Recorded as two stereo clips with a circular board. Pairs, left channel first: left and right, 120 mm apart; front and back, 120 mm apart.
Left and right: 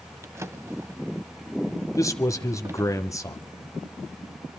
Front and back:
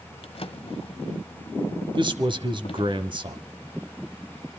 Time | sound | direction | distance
0.2 | a drawer | 25° right | 0.9 m
1.9 | a man speaking | 145° left | 1.6 m